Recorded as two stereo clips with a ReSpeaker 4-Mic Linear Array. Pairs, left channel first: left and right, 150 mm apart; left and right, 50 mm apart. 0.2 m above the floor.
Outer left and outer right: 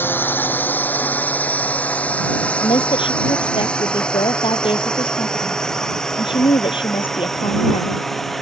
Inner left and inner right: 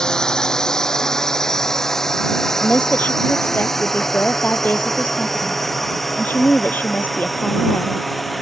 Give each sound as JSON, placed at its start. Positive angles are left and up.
{"t": 0.0, "sound": "a drone", "side_deg": 15}
{"t": 2.6, "sound": "a woman speaking", "side_deg": 35}